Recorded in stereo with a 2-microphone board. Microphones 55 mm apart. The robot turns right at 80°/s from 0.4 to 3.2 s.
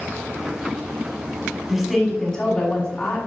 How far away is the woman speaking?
About 1.4 m.